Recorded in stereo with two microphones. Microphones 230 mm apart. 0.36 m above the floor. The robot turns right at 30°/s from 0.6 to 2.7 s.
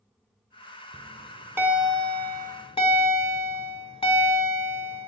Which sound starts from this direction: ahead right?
A bell, at 0.9 s.